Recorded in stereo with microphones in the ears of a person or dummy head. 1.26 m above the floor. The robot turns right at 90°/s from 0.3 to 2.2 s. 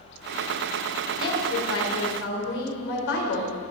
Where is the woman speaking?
20° left, 4 m; by 3.6 s 115° left, 4 m.